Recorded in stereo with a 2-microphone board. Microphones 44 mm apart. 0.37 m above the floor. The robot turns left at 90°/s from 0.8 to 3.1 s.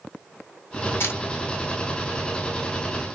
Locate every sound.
1.0 s a camera shutter: 60° left (ahead or behind), 1.7 m; by 1.2 s 45° left (ahead or behind), 1.7 m